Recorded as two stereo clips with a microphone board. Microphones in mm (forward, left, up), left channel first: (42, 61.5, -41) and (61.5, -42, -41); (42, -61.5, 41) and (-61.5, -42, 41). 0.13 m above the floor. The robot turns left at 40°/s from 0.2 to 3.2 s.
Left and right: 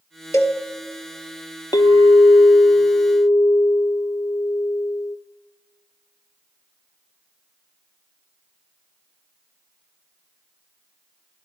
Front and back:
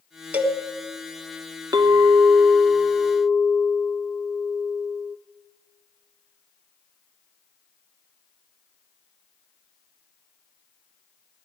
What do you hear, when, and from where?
0.3 s a cowbell: 110° left, 1.3 m; by 0.6 s 100° left, 1.3 m
1.7 s a clink: 130° left, 1.0 m; by 5.2 s 75° left, 1.0 m